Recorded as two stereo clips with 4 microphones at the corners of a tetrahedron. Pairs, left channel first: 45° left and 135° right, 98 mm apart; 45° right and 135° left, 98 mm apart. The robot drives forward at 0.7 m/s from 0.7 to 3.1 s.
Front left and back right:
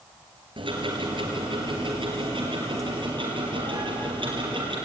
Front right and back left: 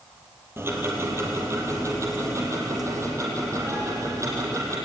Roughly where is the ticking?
Behind.